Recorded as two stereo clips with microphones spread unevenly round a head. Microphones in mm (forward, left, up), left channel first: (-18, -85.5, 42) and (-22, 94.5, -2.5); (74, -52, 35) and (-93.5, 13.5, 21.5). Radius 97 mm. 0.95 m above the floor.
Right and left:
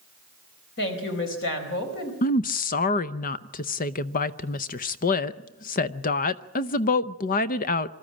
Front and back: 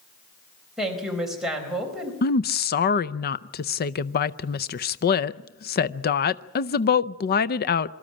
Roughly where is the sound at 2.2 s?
Ahead right.